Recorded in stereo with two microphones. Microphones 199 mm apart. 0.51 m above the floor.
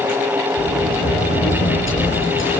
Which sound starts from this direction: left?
A sliding door, at 0.6 s.